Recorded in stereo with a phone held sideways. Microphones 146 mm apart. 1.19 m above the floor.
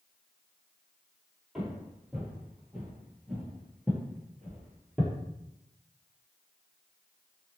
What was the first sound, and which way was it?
Footsteps, 5° right (ahead or behind).